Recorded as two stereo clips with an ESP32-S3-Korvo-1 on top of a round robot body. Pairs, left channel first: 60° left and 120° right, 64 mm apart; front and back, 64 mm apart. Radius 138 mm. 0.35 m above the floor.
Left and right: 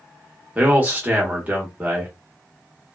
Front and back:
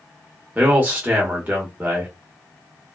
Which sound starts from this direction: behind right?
A man speaking, at 0.6 s.